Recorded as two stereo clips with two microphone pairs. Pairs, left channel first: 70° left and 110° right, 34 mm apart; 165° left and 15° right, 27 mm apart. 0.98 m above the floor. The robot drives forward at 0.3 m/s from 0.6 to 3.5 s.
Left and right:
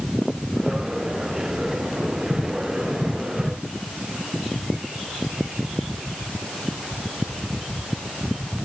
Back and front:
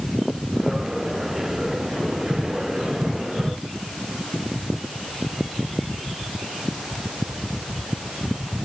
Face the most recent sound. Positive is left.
No sound to turn to.